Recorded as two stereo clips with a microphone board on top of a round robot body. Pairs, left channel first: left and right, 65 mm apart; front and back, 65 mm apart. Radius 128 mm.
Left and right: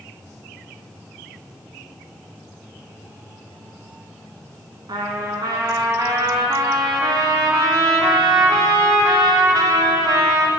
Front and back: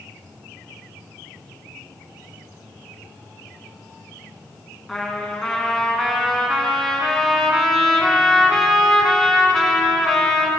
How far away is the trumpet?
About 1.2 m.